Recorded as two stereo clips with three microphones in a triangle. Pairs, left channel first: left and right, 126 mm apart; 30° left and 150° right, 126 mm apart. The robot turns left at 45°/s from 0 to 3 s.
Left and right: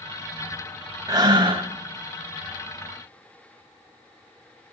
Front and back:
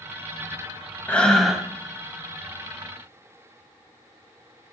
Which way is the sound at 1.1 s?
45° right.